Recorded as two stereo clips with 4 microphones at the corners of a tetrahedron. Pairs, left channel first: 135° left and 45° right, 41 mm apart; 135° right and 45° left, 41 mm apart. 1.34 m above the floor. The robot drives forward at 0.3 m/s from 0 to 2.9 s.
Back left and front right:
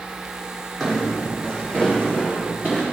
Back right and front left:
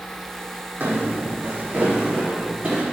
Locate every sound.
0.8 s footsteps: 50° left, 4 m; by 2.8 s 90° left, 5.5 m